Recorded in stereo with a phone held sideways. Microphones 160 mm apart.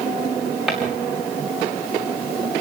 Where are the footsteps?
5° right (ahead or behind), 6 m.